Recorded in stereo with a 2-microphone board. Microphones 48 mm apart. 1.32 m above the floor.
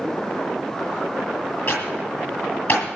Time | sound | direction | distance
1.7 | typing on a keyboard | 45° left (ahead or behind) | 9.5 m